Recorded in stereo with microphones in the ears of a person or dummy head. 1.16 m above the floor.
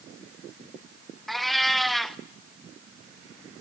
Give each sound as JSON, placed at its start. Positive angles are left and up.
{"t": 1.3, "sound": "a cat meowing", "side_deg": 5, "distance_m": 0.7}